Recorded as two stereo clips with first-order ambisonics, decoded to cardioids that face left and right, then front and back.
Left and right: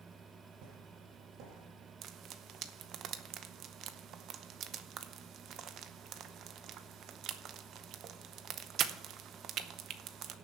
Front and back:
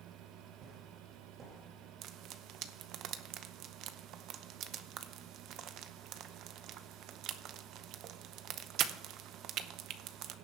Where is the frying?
140° right, 0.7 m.